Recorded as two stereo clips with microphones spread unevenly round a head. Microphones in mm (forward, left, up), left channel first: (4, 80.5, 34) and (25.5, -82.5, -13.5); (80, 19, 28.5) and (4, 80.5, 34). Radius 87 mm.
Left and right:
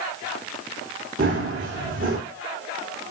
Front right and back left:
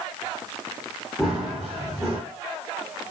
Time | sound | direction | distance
1.2 | running footsteps | 125° right | 5.5 m